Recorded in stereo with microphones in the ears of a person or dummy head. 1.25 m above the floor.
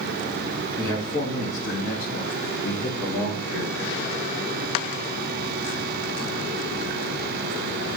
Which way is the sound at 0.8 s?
10° left (ahead or behind).